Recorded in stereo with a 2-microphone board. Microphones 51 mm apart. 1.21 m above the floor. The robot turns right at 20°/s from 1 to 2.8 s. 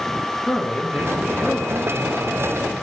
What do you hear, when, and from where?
0.5 s a man speaking: 165° left, 1.2 m; by 2.7 s 160° right, 1.2 m